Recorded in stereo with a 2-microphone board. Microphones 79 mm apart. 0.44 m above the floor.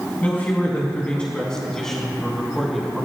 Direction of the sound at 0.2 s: 20° left (ahead or behind).